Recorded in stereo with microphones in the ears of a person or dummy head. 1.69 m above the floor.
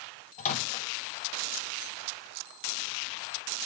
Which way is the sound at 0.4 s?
35° left (ahead or behind).